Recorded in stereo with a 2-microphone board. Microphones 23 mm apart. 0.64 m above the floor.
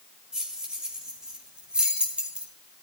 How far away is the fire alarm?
I don't hear a fire alarm.